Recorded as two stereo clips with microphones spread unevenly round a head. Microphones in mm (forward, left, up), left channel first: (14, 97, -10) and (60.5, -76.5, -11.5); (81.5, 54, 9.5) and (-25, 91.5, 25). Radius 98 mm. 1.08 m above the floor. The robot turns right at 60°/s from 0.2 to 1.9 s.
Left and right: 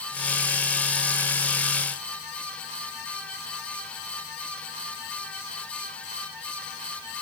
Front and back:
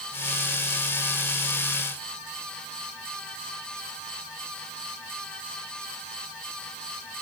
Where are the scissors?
I don't hear scissors.